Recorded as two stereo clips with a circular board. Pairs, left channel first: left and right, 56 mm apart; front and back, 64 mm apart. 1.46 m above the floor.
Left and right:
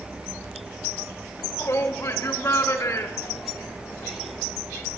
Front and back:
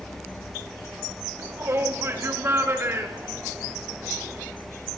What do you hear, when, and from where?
1.4 s a shout: 130° left, 4 m; by 4.4 s 125° left, 6 m